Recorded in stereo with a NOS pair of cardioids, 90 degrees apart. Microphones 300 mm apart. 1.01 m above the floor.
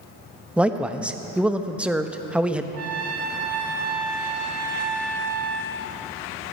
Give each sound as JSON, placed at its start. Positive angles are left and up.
{"t": 0.6, "sound": "a man speaking", "azimuth_deg": -5, "distance_m": 0.9}
{"t": 2.7, "sound": "a trumpet", "azimuth_deg": -50, "distance_m": 1.5}